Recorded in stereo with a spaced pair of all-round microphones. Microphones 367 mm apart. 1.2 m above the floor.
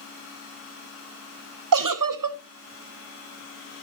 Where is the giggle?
60° right (ahead or behind), 0.6 m.